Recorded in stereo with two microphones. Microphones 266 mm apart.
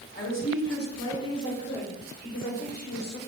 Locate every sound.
0.1 s a woman speaking: 45° left (ahead or behind), 2.5 m; by 3.2 s 70° left (ahead or behind), 3.5 m